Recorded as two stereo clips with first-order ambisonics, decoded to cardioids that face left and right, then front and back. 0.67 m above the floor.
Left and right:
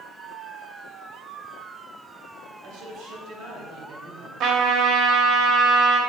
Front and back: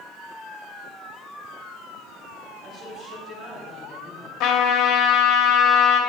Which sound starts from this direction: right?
A man speaking, at 2.6 s.